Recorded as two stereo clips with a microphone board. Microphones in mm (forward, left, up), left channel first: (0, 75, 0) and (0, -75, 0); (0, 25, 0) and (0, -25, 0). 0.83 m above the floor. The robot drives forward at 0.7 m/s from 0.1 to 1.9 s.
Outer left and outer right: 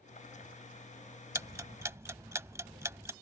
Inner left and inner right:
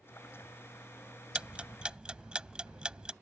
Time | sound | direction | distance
1.4 | ticking | 20° right (ahead or behind) | ?